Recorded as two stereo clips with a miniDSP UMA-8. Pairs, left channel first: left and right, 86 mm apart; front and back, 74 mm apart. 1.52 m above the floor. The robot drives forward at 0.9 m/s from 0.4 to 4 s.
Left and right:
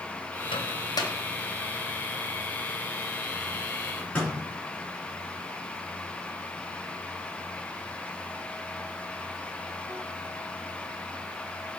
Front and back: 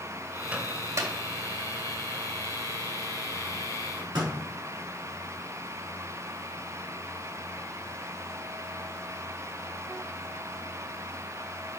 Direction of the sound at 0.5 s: 110° left.